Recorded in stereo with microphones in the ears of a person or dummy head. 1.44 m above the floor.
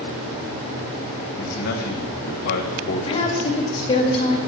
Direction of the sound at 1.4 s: 55° left (ahead or behind).